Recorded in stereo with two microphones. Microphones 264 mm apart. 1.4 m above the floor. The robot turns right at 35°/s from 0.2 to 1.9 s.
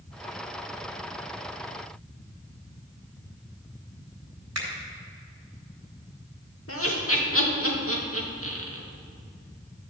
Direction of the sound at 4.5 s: 75° right (ahead or behind).